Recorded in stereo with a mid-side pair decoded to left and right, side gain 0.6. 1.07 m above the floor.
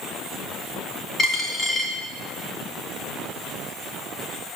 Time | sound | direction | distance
1.2 | a dropped coin | 30° left | 3 m